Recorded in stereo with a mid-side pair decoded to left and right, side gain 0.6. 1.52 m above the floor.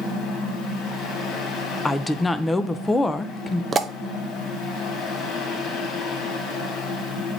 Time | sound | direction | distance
0.0 | a fan | 60° left | 2.5 m
1.9 | a woman speaking | 15° left | 0.8 m
3.7 | a pop | 30° right | 0.7 m